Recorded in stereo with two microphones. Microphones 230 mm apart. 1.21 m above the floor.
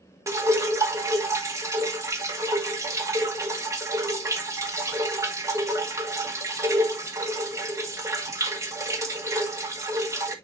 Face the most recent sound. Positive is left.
turn(degrees=-15)  # may be behind; listen again after turning